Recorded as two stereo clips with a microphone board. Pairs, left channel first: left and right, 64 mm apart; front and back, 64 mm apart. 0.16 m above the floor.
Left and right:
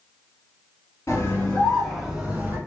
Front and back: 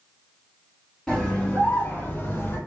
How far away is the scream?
About 1.5 m.